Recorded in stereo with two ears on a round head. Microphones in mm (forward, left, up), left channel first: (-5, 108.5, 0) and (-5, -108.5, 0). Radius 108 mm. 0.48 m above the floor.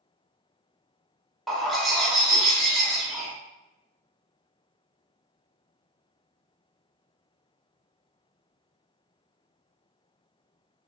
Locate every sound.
1.5 s a bird: centre (ahead or behind), 0.6 m